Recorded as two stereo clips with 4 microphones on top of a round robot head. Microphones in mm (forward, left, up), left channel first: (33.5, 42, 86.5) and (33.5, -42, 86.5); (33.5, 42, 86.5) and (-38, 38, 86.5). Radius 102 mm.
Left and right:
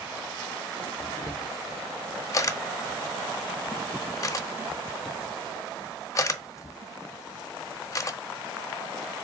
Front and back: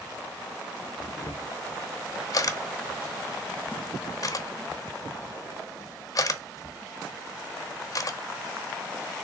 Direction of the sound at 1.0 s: 40° left.